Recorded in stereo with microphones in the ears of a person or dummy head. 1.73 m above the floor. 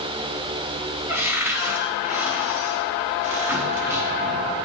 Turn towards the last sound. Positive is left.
turn(degrees=-10)  # may be behind; listen again after turning